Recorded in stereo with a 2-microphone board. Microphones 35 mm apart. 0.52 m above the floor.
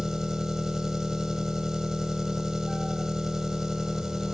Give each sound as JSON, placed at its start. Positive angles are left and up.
{"t": 0.0, "sound": "an engine running", "side_deg": -10, "distance_m": 1.4}